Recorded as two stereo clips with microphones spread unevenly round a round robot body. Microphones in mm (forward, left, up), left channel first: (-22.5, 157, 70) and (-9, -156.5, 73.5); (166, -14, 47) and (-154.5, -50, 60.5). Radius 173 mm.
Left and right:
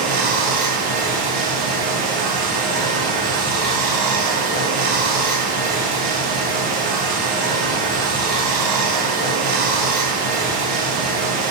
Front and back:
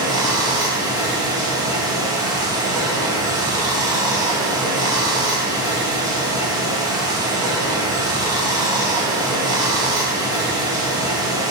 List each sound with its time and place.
0.0 s running water: 95° right, 0.9 m